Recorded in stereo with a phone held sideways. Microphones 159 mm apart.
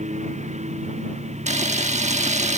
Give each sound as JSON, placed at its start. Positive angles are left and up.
{"t": 0.0, "sound": "a lawn mower", "side_deg": -45}
{"t": 1.5, "sound": "a camera shutter", "side_deg": -45}